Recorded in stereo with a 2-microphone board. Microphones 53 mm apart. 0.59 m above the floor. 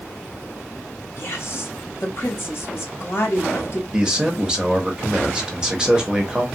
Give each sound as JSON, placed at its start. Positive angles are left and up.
{"t": 1.2, "sound": "a woman speaking", "side_deg": 50, "distance_m": 1.0}
{"t": 3.9, "sound": "a man speaking", "side_deg": -15, "distance_m": 0.8}